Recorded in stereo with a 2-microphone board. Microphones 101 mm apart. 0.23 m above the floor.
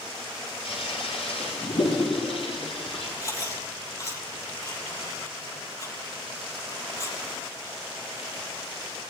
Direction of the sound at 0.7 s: 75° left (ahead or behind).